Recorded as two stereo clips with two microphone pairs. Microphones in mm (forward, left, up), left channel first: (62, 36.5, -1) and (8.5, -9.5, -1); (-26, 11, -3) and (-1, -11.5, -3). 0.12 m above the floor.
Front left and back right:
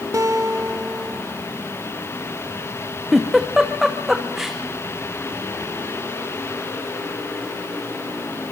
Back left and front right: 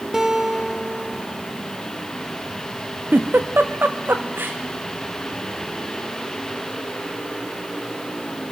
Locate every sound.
0.1 s a guitar: 115° right, 2.5 m
3.1 s a giggle: 55° right, 2.5 m